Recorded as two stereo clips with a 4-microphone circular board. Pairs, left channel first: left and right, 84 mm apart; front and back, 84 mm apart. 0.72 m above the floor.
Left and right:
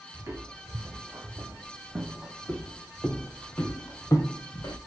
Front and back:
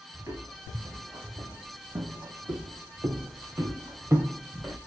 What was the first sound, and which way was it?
Footsteps, 140° right.